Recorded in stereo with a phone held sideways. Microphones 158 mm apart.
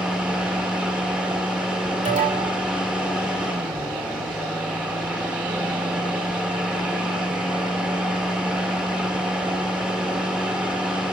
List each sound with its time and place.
0.0 s a fan: 5° right (ahead or behind), 1.6 m
2.0 s an alarm: 50° right (ahead or behind), 3 m